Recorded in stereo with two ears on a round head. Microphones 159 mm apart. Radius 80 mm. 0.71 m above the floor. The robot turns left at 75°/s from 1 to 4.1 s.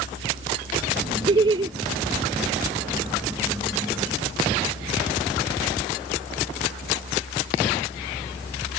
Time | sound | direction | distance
1.3 | laughter | 25° right (ahead or behind) | ?